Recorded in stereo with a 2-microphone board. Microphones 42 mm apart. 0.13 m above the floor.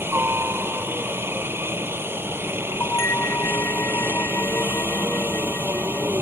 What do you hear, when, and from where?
0.0 s a helicopter: 60° right (ahead or behind)
2.8 s a bell: 70° left (ahead or behind)